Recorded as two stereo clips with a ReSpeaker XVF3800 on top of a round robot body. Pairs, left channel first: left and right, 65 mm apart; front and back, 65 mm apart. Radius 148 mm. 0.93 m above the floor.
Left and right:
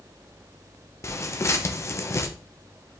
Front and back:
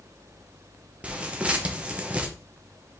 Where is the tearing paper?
115° left, 1.2 m.